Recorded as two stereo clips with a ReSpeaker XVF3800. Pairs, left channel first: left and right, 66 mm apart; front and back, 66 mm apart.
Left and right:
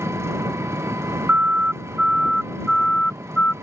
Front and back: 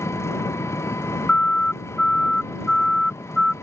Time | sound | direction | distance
0.0 | an engine running | 45° right | ?
1.3 | a siren | 55° right | ?